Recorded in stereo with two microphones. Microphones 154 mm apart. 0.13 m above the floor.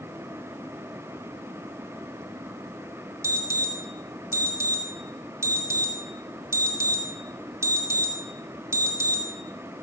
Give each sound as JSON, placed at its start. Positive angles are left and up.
{"t": 3.2, "sound": "an alarm", "side_deg": -20, "distance_m": 3.5}